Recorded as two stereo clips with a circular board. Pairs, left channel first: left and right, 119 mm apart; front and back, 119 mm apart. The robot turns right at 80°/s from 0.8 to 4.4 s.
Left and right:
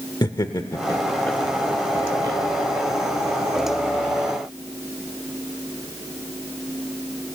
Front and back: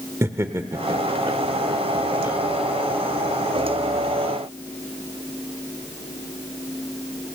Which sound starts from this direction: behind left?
Laughter, at 0.2 s.